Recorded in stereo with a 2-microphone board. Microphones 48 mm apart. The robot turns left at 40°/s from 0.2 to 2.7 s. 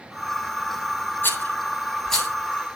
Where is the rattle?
45° left (ahead or behind), 9 m; by 2.3 s 5° left (ahead or behind), 9 m.